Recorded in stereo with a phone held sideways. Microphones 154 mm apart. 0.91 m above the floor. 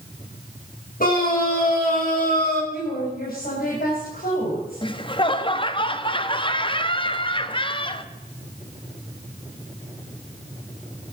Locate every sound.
1.0 s a scream: 65° left (ahead or behind), 6.5 m; by 2.6 s 75° left (ahead or behind), 6 m
2.7 s a woman speaking: 75° left (ahead or behind), 4 m
4.8 s laughter: 35° left (ahead or behind), 1.1 m